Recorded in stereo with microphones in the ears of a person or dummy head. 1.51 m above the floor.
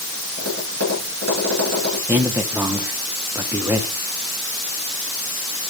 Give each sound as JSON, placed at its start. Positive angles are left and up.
{"t": 0.4, "sound": "tapping", "side_deg": -55, "distance_m": 8.0}
{"t": 2.1, "sound": "a man speaking", "side_deg": -10, "distance_m": 1.6}